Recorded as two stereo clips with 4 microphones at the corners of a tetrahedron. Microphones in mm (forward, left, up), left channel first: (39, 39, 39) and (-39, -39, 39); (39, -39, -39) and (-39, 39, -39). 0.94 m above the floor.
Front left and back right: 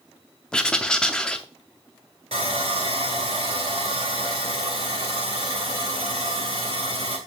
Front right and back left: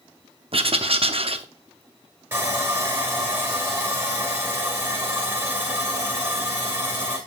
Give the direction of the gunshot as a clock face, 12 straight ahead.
I don't hear a gunshot.